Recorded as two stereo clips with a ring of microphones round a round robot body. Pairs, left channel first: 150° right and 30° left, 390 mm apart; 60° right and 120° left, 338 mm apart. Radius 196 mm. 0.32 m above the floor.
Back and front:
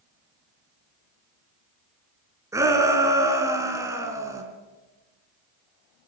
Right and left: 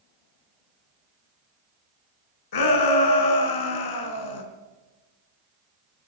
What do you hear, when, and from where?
2.5 s a shout: 50° right, 3.5 m